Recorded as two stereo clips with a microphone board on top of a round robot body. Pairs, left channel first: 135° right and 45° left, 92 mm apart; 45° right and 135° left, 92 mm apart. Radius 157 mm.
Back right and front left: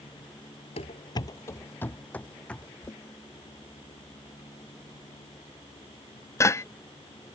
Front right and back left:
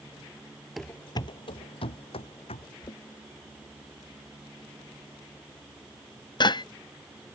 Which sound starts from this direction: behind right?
Running footsteps, at 0.8 s.